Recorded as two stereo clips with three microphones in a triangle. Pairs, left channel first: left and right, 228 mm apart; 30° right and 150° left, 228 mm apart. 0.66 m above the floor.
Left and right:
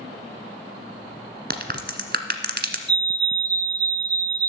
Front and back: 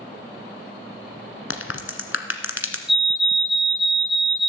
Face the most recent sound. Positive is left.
turn(degrees=-125)